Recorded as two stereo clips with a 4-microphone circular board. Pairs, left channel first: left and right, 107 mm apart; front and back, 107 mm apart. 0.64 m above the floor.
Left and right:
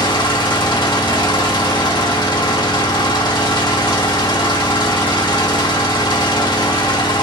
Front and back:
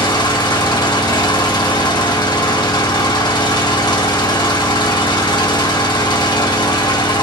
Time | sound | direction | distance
0.0 | an engine running | 45° left | 0.8 m